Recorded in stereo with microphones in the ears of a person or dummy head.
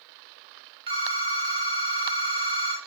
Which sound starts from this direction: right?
A phone ringing, at 0.9 s.